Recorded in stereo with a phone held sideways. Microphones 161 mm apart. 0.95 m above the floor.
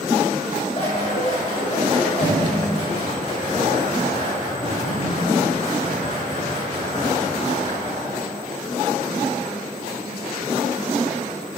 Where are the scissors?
40° left (ahead or behind), 2.5 m.